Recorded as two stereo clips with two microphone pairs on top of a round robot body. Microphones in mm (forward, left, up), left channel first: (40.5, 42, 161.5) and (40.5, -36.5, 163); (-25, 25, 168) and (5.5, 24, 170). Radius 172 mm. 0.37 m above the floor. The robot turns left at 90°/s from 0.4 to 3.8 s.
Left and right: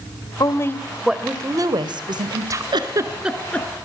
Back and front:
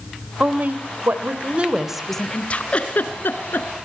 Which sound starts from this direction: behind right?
A giggle, at 2.7 s.